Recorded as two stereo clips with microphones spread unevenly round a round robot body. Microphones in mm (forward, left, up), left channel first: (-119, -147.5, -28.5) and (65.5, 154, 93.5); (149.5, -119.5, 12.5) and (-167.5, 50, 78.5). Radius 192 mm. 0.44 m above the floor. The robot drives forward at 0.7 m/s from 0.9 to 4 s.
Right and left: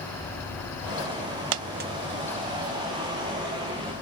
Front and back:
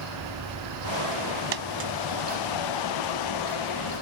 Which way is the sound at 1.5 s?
90° left.